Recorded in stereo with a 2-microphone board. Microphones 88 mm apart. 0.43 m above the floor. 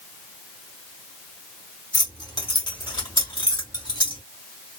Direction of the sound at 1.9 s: 40° left (ahead or behind).